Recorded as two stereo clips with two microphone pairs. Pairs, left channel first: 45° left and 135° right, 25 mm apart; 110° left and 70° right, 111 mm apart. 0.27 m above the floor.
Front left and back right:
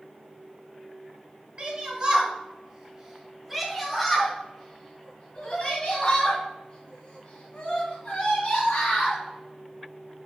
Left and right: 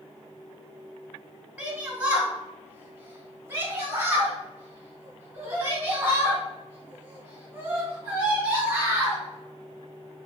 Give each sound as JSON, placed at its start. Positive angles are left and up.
{"t": 1.6, "sound": "a shout", "azimuth_deg": -145, "distance_m": 1.8}